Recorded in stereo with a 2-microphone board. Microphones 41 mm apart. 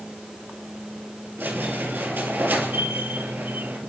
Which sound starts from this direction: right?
A squeak, at 1.4 s.